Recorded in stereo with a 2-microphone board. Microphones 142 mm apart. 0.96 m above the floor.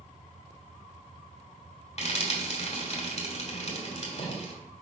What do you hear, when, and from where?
2.0 s frying: 50° left (ahead or behind), 2 m